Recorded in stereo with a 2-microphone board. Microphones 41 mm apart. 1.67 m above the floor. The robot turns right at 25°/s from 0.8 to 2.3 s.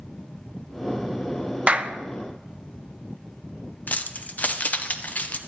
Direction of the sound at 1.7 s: 30° right (ahead or behind).